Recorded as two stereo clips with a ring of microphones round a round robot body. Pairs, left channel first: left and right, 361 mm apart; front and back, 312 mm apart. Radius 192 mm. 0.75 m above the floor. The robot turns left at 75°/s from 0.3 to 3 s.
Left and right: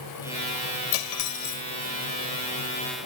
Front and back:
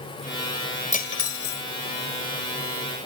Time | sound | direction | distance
0.9 | cutlery clinking | 65° left | ?